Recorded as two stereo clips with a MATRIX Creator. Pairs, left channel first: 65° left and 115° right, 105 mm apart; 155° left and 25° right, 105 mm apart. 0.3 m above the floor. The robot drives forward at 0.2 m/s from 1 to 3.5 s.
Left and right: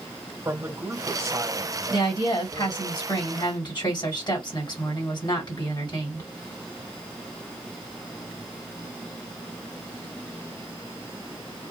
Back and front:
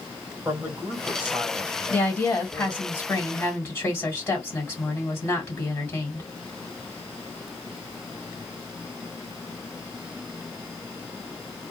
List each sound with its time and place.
0.5 s a man speaking: 80° right, 1.5 m; by 2.8 s 105° right, 1.5 m
1.9 s a woman speaking: 85° left, 2 m; by 6.3 s 95° left, 2.5 m